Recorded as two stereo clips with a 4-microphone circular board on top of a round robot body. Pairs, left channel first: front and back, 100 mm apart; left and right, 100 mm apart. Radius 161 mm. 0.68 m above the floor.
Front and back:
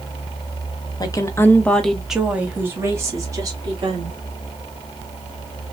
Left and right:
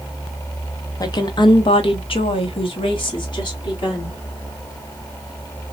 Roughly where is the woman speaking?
Ahead left.